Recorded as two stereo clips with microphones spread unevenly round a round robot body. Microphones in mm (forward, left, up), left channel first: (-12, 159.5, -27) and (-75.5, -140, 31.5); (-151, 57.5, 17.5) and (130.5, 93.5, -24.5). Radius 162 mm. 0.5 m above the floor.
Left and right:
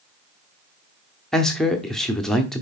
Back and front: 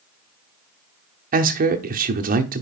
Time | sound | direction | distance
1.3 | a man speaking | 5° left | 0.8 m